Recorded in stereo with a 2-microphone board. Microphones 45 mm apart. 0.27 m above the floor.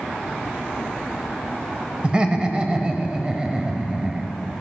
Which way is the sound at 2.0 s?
20° right (ahead or behind).